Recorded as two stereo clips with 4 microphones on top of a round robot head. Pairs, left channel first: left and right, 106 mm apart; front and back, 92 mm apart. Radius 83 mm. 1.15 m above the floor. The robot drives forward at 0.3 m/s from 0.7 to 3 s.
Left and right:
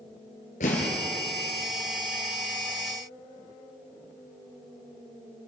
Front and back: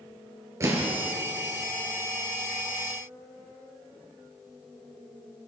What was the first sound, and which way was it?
An explosion, 125° left.